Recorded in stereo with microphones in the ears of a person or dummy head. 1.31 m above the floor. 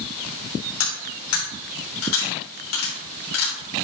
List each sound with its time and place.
0.8 s cutlery clinking: 80° left, 3 m